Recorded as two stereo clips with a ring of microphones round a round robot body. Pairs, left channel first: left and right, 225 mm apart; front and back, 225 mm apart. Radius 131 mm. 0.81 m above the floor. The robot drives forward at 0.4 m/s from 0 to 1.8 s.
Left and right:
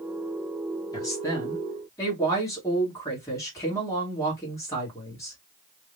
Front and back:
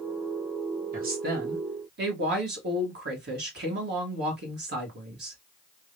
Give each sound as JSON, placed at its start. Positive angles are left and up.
{"t": 0.9, "sound": "a woman speaking", "azimuth_deg": 155, "distance_m": 1.3}